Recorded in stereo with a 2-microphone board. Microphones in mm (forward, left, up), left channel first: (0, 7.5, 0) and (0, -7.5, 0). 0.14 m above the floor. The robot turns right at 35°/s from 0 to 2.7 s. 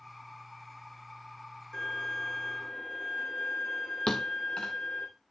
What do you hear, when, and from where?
1.7 s a violin: 50° left, 6.5 m; by 5.1 s 85° left, 6.5 m
4.1 s a thud: 70° left (ahead or behind), 1.4 m